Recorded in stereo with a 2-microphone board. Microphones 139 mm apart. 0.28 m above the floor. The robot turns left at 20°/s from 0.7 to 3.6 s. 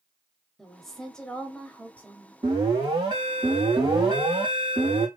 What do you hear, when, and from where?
0.6 s a woman speaking: centre (ahead or behind), 1.0 m; by 2.3 s 15° left (ahead or behind), 1.0 m
2.4 s an alarm: 45° right (ahead or behind), 2.5 m; by 5.1 s 40° right (ahead or behind), 2.5 m